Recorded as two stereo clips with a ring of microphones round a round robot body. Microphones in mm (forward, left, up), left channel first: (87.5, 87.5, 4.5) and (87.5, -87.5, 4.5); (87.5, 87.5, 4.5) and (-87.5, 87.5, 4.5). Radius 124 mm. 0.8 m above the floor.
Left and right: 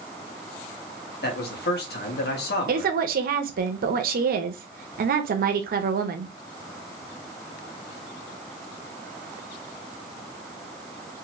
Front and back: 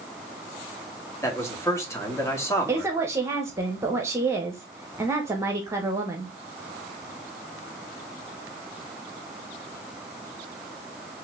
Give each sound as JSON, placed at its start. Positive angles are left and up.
{"t": 1.2, "sound": "a man speaking", "azimuth_deg": 75, "distance_m": 1.8}
{"t": 2.7, "sound": "a woman speaking", "azimuth_deg": -105, "distance_m": 0.8}